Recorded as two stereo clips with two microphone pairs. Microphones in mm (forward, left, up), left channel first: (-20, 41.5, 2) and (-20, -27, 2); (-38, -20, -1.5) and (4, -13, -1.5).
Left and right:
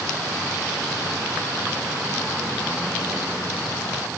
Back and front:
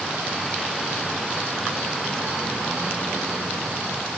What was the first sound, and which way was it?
Only background noise.